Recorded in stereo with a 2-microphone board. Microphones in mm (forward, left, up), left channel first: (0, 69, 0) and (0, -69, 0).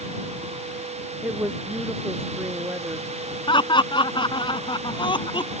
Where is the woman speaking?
15° right (ahead or behind).